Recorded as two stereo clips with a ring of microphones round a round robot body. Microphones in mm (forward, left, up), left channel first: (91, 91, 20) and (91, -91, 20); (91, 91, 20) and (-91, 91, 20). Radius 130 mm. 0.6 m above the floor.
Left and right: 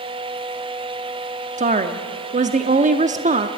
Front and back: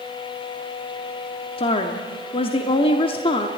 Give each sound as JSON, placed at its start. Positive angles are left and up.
{"t": 1.6, "sound": "a woman speaking", "azimuth_deg": -55, "distance_m": 0.9}